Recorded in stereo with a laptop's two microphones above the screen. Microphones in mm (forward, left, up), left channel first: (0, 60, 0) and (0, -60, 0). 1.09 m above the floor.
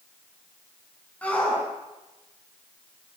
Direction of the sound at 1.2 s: 10° left (ahead or behind).